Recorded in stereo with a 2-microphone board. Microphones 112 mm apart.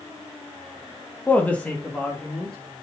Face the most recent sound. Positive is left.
turn(degrees=5)  # may be behind; listen again after turning